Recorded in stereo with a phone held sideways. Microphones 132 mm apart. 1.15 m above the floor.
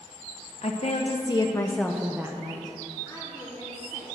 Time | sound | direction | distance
0.6 | a woman speaking | 55° left (ahead or behind) | 0.8 m
3.0 | a woman speaking | 25° right (ahead or behind) | 3.5 m